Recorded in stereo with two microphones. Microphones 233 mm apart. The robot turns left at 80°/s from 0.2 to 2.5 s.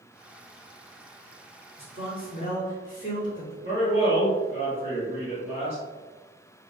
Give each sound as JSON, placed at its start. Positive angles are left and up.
{"t": 1.8, "sound": "a man speaking", "azimuth_deg": 115, "distance_m": 1.5}
{"t": 3.6, "sound": "a man speaking", "side_deg": -30, "distance_m": 1.2}